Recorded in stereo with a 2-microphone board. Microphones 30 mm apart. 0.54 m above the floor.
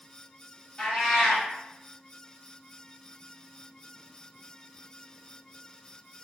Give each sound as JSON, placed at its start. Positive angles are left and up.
{"t": 0.8, "sound": "a cat meowing", "side_deg": 30, "distance_m": 1.9}